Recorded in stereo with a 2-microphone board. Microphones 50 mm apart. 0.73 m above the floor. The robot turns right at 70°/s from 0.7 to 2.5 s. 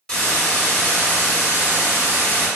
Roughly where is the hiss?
Ahead.